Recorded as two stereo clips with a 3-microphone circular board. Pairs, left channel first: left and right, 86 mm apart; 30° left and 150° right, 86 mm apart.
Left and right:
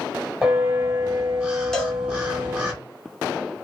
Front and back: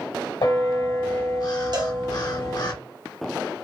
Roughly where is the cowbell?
Behind.